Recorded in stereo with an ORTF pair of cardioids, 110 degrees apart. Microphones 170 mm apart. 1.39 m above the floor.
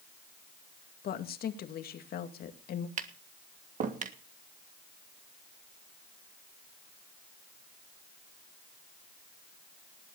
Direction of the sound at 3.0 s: 45° right.